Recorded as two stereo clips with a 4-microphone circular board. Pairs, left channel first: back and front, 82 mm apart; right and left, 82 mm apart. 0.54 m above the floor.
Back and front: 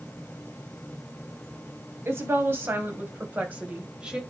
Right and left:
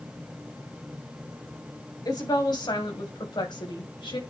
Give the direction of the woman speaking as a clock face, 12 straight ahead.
2 o'clock.